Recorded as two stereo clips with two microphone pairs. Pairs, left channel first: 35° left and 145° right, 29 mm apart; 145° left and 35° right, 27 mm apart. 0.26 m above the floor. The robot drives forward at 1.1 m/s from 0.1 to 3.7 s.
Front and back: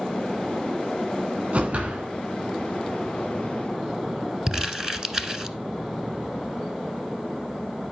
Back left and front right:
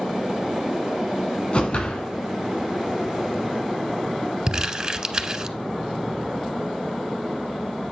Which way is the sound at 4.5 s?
90° right.